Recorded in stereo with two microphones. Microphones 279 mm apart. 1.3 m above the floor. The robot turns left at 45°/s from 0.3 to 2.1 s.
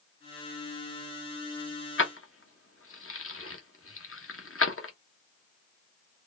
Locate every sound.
2.0 s keys jangling: 45° left (ahead or behind), 0.8 m; by 4.9 s 50° left (ahead or behind), 0.8 m